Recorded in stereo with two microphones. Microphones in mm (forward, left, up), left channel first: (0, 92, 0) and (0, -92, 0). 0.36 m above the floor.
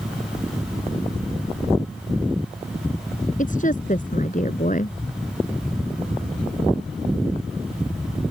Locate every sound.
3.4 s a woman speaking: 45° left (ahead or behind)